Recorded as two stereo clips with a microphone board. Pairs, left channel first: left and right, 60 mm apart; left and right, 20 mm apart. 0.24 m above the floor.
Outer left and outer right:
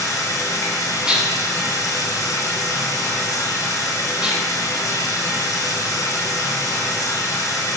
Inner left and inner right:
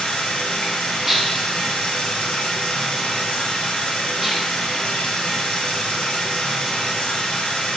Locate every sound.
0.0 s running water: 70° left (ahead or behind), 1.4 m
1.1 s dishes clattering: 10° right (ahead or behind), 1.4 m